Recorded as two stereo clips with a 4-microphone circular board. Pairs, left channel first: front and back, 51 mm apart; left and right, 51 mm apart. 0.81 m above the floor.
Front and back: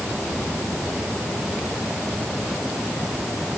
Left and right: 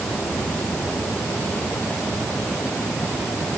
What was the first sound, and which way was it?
Only background noise.